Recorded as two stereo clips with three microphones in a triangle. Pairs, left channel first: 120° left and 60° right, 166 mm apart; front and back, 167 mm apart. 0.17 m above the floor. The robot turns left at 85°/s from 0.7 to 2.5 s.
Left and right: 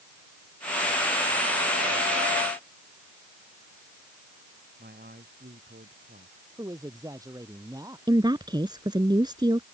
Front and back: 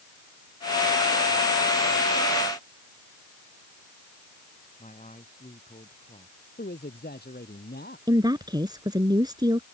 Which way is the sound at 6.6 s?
10° left.